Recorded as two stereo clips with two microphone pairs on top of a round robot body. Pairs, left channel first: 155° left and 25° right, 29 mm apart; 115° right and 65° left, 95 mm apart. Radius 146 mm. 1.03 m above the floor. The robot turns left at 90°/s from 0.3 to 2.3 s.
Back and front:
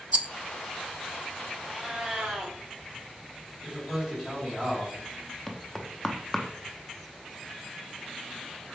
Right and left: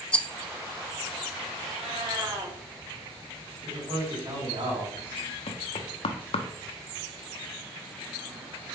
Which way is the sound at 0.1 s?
50° right.